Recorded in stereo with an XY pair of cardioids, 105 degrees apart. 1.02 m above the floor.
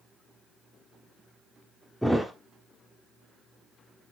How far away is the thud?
About 1.1 m.